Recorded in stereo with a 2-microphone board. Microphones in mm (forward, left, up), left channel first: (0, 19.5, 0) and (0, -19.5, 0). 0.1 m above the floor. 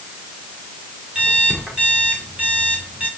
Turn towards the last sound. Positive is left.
turn(degrees=-40)  # may be behind; listen again after turning